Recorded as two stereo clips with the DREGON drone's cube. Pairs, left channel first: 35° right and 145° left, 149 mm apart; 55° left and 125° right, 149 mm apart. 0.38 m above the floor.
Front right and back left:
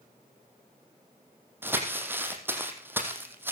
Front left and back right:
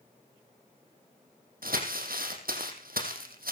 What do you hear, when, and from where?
1.6 s crumpling: 140° right, 4.5 m